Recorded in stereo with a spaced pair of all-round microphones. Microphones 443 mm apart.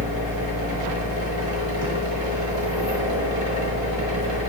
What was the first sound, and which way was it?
A machine running, 70° right (ahead or behind).